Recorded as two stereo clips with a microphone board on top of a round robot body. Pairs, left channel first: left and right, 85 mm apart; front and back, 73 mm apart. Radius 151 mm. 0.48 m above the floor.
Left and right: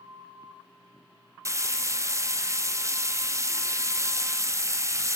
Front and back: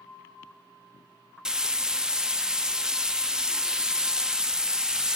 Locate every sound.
1.4 s frying: 105° right, 0.7 m